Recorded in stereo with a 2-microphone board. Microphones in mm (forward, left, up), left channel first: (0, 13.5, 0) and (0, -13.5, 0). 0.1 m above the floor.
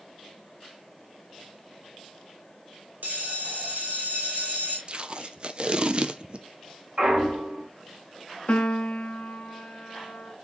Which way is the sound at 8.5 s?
50° left (ahead or behind).